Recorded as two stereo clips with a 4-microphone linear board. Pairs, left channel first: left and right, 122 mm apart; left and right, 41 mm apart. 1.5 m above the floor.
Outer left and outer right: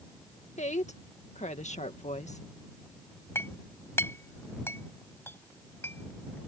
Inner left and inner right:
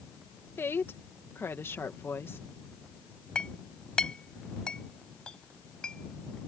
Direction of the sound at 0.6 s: 85° left.